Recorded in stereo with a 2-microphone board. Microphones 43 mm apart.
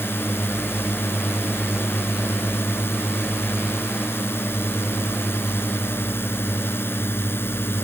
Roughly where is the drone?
Left.